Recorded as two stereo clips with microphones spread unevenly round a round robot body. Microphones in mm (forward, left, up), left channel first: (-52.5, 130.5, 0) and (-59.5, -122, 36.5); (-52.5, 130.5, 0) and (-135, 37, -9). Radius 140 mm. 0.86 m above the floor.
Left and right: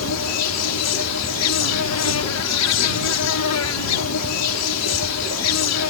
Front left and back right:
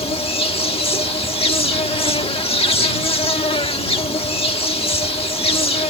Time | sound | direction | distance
0.0 | an insect | 90° left | ?